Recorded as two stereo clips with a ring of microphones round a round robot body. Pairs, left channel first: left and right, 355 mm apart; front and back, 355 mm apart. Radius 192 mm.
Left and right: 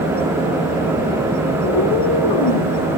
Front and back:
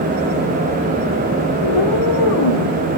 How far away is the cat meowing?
About 5.5 m.